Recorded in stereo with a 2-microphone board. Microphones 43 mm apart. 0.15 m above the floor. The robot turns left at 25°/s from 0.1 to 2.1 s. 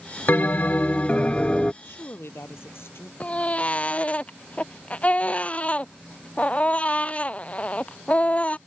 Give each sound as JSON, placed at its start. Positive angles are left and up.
{"t": 0.3, "sound": "a bell", "azimuth_deg": 60}
{"t": 1.8, "sound": "a woman speaking", "side_deg": 70}
{"t": 3.2, "sound": "a baby crying", "side_deg": 30}